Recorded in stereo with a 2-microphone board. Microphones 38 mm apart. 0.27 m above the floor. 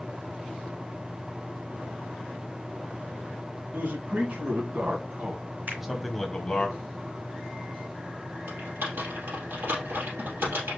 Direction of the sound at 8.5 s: 85° right.